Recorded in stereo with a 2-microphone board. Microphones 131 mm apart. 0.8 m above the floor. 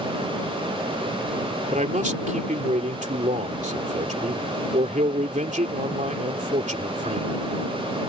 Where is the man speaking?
70° right (ahead or behind).